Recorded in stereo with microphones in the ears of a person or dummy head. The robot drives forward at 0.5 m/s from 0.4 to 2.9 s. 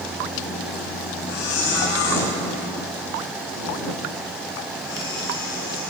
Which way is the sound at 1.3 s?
70° left (ahead or behind).